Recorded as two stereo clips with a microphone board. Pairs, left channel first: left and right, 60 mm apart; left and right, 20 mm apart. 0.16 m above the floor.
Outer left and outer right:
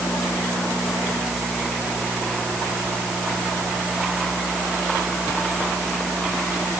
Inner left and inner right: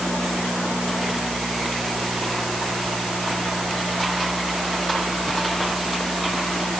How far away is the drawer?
No drawer in this recording.